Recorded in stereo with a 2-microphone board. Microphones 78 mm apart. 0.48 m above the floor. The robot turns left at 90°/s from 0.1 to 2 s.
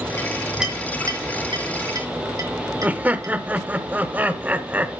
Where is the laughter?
20° right (ahead or behind), 1.2 m.